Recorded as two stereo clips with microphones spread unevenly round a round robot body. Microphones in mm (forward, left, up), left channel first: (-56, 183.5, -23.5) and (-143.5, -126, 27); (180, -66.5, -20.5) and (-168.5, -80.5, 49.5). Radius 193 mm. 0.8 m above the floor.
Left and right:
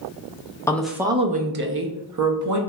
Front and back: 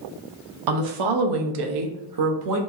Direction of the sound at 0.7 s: 150° left.